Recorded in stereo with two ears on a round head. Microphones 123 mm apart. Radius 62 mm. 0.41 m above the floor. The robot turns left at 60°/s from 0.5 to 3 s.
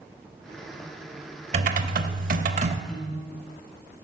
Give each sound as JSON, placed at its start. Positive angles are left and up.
{"t": 1.5, "sound": "typing on a keyboard", "azimuth_deg": -55, "distance_m": 0.9}
{"t": 2.9, "sound": "a piano", "side_deg": 35, "distance_m": 2.5}